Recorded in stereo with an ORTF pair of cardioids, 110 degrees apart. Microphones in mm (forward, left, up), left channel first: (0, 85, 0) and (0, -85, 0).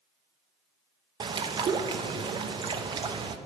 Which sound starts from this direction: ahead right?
A bird, at 1.2 s.